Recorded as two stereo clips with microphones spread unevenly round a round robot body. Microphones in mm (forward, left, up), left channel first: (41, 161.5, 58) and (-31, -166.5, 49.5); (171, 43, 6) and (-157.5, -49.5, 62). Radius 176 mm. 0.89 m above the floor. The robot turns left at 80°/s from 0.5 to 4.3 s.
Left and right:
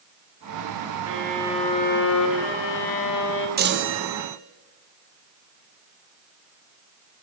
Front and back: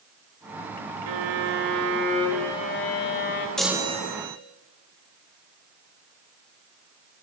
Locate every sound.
1.1 s a violin: 150° right, 1.2 m; by 3.5 s 15° left, 1.2 m
3.6 s a chime: 60° right, 0.8 m; by 4.4 s 115° right, 0.8 m